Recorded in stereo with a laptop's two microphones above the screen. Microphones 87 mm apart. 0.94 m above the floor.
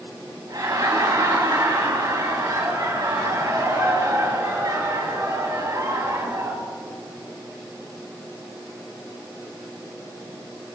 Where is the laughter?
50° right (ahead or behind), 5.5 m.